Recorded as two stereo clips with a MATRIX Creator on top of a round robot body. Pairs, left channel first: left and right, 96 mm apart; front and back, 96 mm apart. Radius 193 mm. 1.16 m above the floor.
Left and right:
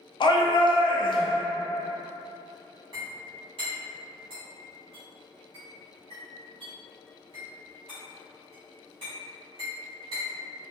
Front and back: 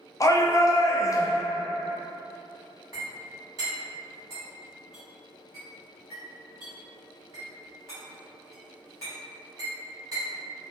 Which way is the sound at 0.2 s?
55° left.